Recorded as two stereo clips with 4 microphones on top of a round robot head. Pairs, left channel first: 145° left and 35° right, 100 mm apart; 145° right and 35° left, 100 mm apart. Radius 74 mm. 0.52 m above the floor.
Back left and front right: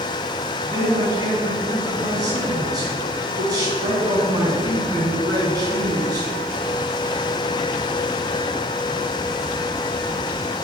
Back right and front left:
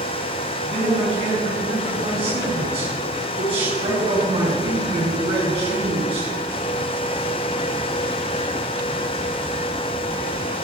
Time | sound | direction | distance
0.6 | a man speaking | 15° left | 5 m